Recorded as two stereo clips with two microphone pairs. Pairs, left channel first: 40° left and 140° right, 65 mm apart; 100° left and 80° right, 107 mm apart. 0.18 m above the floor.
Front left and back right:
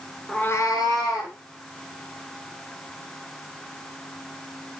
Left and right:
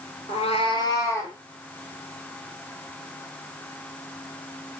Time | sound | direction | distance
0.3 | a cat meowing | 125° left | 0.5 m